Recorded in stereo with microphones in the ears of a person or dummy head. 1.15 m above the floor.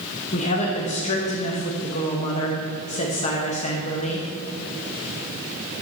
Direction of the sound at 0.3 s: 30° left (ahead or behind).